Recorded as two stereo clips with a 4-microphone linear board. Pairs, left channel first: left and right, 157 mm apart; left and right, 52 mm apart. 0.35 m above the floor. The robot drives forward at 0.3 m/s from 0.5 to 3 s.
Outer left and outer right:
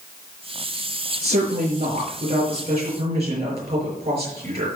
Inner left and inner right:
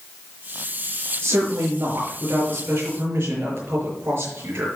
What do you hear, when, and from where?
1.2 s a woman speaking: 45° right (ahead or behind), 6 m; by 4.7 s 40° right (ahead or behind), 6.5 m